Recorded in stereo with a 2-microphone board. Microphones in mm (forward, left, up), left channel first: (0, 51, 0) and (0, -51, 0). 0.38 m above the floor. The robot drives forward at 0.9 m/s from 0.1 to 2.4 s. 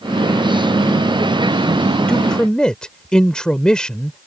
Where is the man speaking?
10° left (ahead or behind).